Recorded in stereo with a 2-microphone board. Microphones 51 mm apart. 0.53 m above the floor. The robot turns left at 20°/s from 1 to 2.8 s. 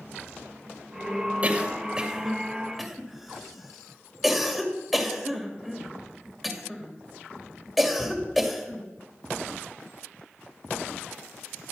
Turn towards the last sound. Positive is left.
turn(degrees=0)  # may be behind; listen again after turning